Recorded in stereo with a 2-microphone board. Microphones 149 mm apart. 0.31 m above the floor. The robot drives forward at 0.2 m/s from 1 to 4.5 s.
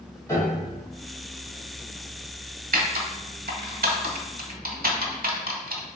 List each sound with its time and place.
0.3 s a piano: 20° left (ahead or behind), 1.7 m
2.7 s typing on a keyboard: 65° right (ahead or behind), 0.8 m